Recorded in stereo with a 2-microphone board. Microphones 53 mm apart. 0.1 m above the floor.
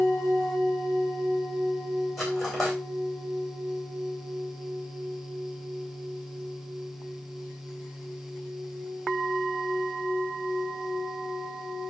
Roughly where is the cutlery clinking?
Centre.